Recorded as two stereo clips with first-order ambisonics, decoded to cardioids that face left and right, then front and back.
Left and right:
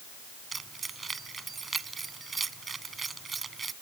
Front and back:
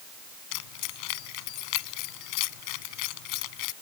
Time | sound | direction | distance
0.5 | keys jangling | 15° right | ?